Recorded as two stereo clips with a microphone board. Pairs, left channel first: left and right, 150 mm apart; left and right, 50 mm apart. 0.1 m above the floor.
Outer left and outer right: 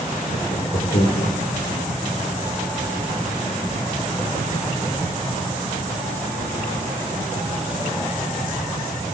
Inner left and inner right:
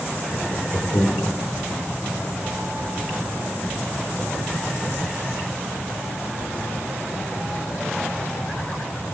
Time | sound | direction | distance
0.3 | laughter | 50° left (ahead or behind) | 3.5 m